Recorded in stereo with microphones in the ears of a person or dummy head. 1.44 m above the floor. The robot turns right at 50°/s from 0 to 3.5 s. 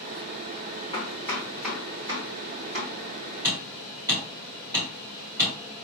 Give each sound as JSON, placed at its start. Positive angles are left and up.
{"t": 0.9, "sound": "chopping", "side_deg": 30, "distance_m": 1.7}
{"t": 3.4, "sound": "hammering", "side_deg": -10, "distance_m": 1.7}